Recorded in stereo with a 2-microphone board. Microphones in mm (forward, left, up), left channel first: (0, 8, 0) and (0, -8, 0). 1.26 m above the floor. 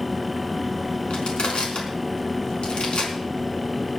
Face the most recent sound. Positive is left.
turn(degrees=80)